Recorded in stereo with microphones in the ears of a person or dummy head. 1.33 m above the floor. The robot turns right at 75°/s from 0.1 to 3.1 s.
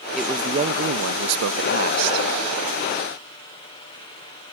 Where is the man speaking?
Straight behind; by 2.3 s 20° right.